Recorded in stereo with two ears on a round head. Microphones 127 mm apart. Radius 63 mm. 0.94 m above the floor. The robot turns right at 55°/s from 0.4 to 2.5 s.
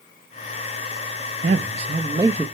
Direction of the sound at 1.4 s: 70° right.